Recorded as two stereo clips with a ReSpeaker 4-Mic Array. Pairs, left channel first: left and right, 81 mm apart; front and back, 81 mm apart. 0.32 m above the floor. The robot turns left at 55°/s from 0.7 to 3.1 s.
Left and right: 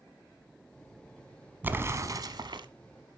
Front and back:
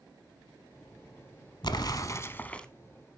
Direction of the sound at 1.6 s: 20° right.